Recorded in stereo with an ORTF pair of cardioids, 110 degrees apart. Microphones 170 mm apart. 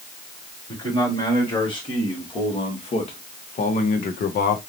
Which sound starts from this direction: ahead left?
A man speaking, at 0.7 s.